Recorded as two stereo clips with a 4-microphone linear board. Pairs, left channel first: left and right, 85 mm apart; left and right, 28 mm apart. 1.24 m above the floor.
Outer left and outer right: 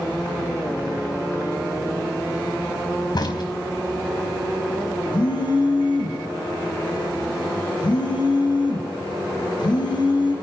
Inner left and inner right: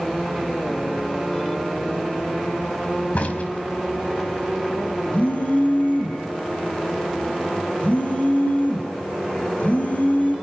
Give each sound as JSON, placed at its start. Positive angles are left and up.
{"t": 3.1, "sound": "a crack", "side_deg": 60, "distance_m": 4.0}
{"t": 5.1, "sound": "a phone buzzing", "side_deg": 65, "distance_m": 5.0}